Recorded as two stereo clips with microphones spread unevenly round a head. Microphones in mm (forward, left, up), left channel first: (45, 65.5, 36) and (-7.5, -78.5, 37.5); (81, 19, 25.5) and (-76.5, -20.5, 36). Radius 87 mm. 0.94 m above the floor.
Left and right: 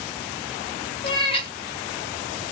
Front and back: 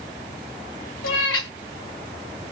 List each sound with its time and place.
1.0 s a cat meowing: 15° left, 2 m